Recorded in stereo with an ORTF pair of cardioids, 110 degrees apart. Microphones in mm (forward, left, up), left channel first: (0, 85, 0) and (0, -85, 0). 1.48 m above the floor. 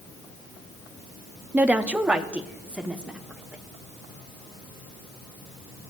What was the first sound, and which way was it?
A woman speaking, 10° right.